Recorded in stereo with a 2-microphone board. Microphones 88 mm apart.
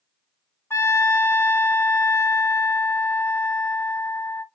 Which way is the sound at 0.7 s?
30° left (ahead or behind).